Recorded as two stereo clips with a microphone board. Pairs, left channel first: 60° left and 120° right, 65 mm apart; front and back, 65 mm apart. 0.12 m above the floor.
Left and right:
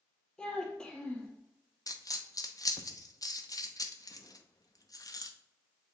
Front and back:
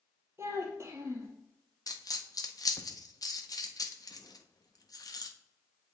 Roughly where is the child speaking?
Behind left.